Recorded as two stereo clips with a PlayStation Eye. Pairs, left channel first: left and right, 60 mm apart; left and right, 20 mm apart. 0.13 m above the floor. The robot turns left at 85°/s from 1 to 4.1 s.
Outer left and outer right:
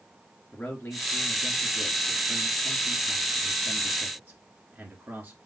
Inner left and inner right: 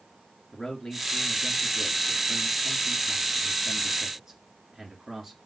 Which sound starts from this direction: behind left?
A man speaking, at 0.5 s.